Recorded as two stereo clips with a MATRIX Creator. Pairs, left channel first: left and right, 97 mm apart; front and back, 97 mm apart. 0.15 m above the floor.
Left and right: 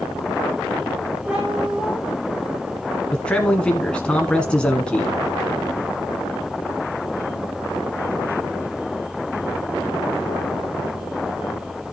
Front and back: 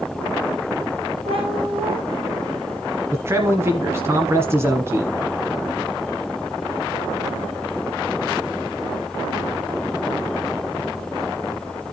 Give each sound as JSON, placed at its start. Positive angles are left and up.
{"t": 1.3, "sound": "a cat meowing", "azimuth_deg": -165, "distance_m": 3.5}
{"t": 3.1, "sound": "a man speaking", "azimuth_deg": 160, "distance_m": 1.3}